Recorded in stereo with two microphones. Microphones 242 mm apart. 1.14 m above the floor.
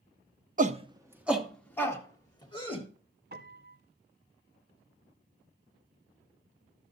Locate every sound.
0.6 s a shout: 35° right (ahead or behind), 0.7 m; by 2.9 s 20° left (ahead or behind), 1.8 m
3.3 s a piano: 45° right (ahead or behind), 0.7 m